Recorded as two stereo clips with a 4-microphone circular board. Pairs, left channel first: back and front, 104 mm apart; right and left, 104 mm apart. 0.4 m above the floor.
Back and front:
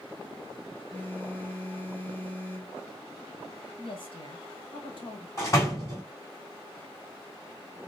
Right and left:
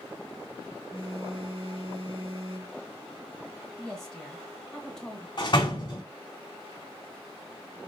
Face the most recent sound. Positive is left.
turn(degrees=-125)